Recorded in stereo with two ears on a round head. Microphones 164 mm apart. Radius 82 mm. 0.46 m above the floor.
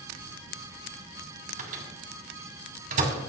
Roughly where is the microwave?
Right.